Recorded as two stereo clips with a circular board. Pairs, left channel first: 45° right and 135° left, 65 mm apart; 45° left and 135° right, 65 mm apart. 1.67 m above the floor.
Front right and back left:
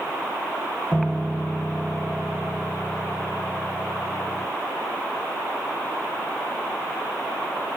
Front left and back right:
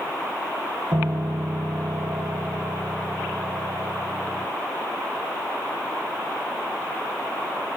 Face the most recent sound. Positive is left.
turn(degrees=-125)